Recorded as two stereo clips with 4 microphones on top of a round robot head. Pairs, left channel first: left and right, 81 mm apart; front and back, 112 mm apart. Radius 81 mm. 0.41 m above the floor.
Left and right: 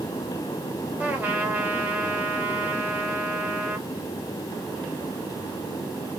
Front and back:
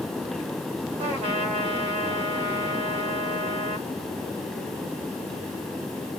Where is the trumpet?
155° right, 1.8 m.